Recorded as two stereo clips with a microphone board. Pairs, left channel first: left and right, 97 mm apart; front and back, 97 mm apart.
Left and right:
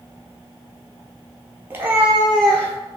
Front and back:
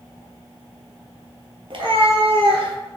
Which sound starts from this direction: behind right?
A cat meowing, at 1.7 s.